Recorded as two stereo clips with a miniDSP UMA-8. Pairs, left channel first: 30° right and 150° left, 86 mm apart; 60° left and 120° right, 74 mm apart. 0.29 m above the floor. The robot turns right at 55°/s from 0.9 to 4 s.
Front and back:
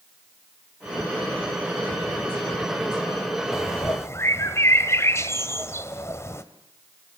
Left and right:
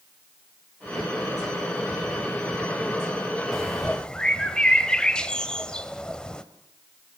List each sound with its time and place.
3.5 s a bird: 35° right, 1.3 m; by 6.4 s 10° right, 1.3 m